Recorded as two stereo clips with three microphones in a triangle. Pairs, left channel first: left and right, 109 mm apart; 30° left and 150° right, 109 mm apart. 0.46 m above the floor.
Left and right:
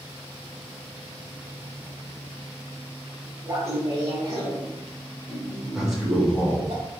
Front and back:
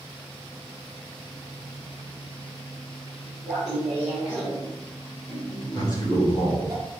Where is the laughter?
55° right, 1.4 m; by 6.7 s 100° right, 2.5 m.